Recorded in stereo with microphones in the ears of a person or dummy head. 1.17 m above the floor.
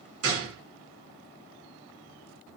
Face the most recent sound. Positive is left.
turn(degrees=-75)  # may be behind; listen again after turning